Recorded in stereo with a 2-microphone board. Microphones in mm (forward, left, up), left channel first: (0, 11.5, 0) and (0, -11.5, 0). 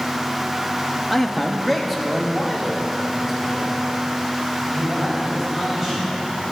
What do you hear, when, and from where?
1.1 s a man speaking: 10° left (ahead or behind), 1.0 m; by 6.2 s 15° right (ahead or behind), 5 m